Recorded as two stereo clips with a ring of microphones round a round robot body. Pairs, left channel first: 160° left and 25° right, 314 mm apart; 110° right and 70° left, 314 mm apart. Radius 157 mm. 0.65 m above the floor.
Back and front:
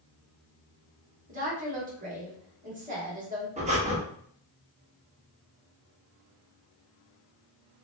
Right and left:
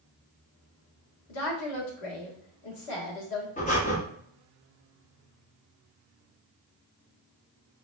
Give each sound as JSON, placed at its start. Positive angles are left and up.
{"t": 1.3, "sound": "a woman speaking", "azimuth_deg": -85, "distance_m": 1.3}
{"t": 3.6, "sound": "breathing", "azimuth_deg": -70, "distance_m": 0.8}